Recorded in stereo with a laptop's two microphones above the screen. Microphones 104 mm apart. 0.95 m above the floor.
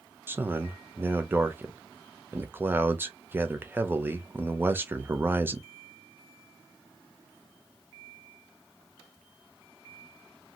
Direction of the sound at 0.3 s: 20° right (ahead or behind).